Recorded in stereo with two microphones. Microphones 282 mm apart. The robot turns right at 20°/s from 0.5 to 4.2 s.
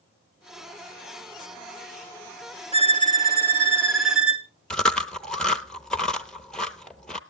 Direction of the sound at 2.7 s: 20° right (ahead or behind).